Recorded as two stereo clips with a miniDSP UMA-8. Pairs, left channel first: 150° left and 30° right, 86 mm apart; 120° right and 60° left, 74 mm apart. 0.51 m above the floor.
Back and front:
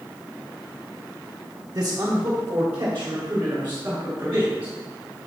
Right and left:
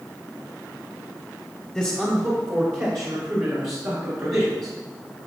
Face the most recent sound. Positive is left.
turn(degrees=35)